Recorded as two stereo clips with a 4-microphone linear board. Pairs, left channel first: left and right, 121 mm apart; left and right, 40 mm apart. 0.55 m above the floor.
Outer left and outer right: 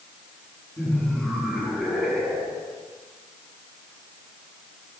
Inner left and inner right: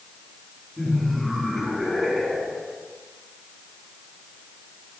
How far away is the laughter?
About 6.5 m.